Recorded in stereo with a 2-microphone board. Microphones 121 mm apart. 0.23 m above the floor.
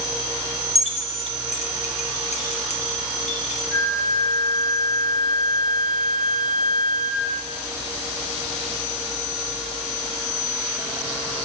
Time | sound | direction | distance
0.8 | keys jangling | 60° left (ahead or behind) | 2 m
3.7 | a flute | 15° right (ahead or behind) | 1.3 m